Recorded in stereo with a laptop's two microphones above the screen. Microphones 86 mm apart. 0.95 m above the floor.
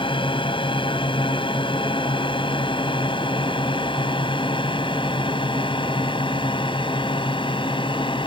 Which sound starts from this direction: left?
A drone, at 0.0 s.